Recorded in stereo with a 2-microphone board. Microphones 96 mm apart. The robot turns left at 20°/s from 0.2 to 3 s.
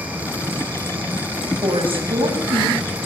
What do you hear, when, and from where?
1.6 s a woman speaking: 65° right (ahead or behind), 8 m; by 2.8 s 85° right, 8 m